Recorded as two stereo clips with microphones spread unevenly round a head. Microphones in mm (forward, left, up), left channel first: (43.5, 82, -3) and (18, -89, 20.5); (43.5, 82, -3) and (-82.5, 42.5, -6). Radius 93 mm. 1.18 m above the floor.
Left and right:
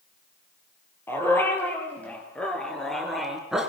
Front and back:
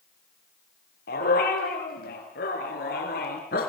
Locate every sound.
1.1 s a dog barking: straight ahead, 7 m; by 3.7 s 15° right, 4.5 m